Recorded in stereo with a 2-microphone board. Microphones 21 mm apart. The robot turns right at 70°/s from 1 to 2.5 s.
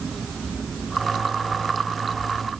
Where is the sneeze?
No sneeze in this recording.